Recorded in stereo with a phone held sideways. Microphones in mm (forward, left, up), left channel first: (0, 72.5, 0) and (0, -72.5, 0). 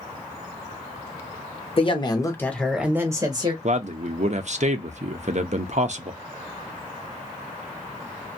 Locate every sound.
1.8 s a woman speaking: 40° left (ahead or behind), 0.9 m; by 3.5 s 35° right (ahead or behind), 0.8 m
3.6 s a man speaking: 55° right (ahead or behind), 0.6 m